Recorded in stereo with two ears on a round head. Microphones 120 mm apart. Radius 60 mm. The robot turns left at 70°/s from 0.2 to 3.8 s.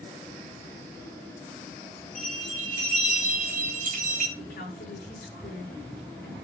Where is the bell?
5° left, 3.5 m; by 4.3 s 110° right, 3.5 m.